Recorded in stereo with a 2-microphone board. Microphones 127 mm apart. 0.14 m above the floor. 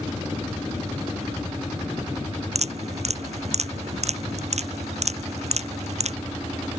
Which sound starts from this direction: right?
Dripping, at 2.5 s.